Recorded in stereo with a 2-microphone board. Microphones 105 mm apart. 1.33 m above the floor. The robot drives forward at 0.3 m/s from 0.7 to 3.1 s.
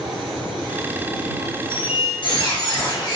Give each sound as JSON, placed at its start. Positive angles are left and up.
{"t": 1.7, "sound": "a squeak", "side_deg": 55, "distance_m": 0.7}